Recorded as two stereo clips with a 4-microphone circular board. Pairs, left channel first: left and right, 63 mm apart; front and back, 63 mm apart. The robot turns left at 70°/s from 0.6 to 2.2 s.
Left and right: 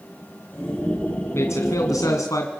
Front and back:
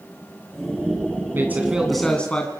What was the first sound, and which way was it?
A man speaking, 130° left.